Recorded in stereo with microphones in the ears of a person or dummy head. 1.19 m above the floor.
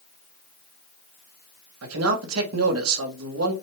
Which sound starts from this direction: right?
A man speaking, at 1.8 s.